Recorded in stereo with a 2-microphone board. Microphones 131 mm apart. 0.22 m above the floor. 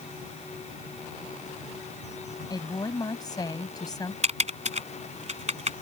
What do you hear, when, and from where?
2.5 s a woman speaking: 30° left (ahead or behind)
4.2 s typing on a keyboard: 55° right (ahead or behind)